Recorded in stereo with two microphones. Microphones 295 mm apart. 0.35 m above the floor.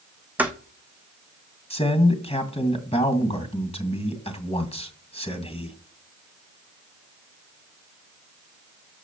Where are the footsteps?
5° right (ahead or behind), 1.3 m.